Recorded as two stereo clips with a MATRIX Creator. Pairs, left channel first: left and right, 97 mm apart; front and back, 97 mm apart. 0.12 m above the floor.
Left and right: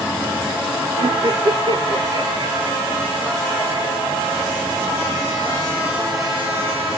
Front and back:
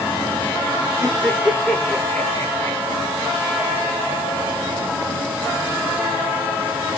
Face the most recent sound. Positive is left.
turn(degrees=-25)